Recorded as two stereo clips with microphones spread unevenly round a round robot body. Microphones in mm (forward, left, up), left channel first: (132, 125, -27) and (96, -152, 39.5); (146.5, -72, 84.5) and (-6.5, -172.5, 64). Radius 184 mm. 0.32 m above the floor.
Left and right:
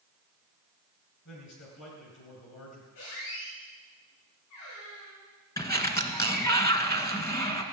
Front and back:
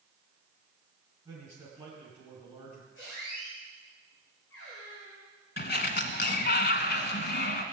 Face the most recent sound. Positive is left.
turn(degrees=5)